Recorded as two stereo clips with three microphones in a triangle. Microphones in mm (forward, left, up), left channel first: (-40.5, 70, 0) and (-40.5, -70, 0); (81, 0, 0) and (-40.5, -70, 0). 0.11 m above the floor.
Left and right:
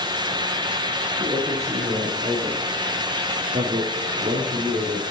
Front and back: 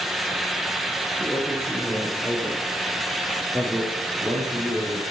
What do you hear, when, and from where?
1.2 s a man speaking: 55° right, 4 m; by 5.0 s 90° right, 4 m